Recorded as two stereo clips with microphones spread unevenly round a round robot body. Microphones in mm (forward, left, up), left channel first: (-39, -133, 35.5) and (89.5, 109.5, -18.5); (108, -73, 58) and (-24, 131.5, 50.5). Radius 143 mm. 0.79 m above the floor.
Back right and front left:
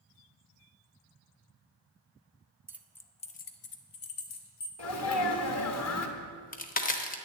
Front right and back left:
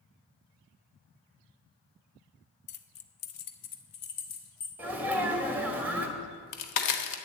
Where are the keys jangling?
15° right, 0.7 m; by 4.7 s 85° right, 1.4 m.